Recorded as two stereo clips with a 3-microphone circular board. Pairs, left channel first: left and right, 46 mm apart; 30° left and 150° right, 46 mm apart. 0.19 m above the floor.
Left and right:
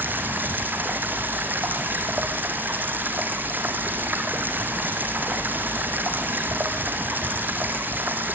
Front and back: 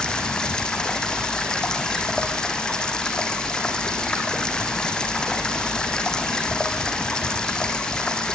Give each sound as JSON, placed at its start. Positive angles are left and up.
{"t": 0.0, "sound": "running water", "azimuth_deg": -40, "distance_m": 3.5}